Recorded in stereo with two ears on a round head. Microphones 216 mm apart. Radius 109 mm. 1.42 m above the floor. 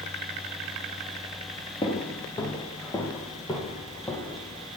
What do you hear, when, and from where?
1.8 s footsteps: 20° left (ahead or behind), 1.5 m; by 4.7 s 10° left (ahead or behind), 3 m